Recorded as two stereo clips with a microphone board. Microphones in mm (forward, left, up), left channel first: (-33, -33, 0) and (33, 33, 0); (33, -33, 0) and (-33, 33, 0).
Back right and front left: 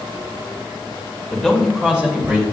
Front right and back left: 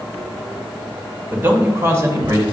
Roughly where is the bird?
No bird in this recording.